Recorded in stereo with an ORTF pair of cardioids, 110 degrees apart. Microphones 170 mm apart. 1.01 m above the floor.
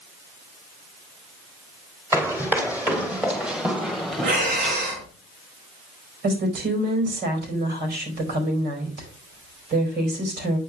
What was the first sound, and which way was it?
Running footsteps, 15° right.